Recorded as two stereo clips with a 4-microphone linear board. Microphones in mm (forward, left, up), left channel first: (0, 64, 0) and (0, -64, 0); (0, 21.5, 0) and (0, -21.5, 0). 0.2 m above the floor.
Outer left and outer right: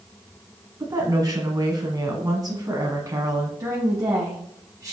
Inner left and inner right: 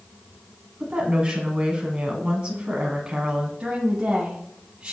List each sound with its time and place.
0.8 s a woman speaking: 30° right (ahead or behind), 1.6 m
3.6 s a woman speaking: 30° right (ahead or behind), 1.1 m